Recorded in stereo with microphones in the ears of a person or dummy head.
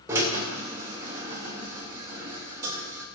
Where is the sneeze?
I don't hear a sneeze.